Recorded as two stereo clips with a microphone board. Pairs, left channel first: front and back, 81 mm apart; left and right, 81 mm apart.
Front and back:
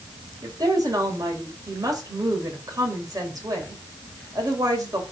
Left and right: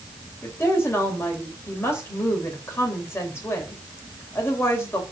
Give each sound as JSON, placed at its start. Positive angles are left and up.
{"t": 0.4, "sound": "a woman speaking", "azimuth_deg": 145, "distance_m": 2.5}